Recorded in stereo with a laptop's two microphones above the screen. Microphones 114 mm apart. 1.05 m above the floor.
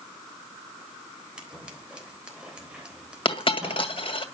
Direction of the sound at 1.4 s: 10° right (ahead or behind).